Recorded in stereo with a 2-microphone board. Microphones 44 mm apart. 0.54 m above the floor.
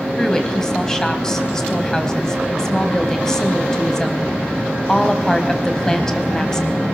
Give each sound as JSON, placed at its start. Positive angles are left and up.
{"t": 0.2, "sound": "a woman speaking", "side_deg": 15, "distance_m": 3.0}